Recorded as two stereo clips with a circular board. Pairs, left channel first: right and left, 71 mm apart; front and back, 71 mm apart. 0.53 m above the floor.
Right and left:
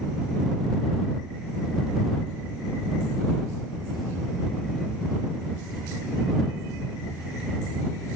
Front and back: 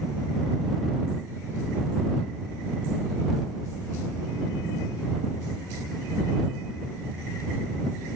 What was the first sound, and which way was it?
Only background noise.